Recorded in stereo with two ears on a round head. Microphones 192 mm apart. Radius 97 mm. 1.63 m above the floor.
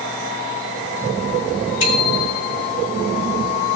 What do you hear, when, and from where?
1.8 s a bicycle bell: 80° left, 4.5 m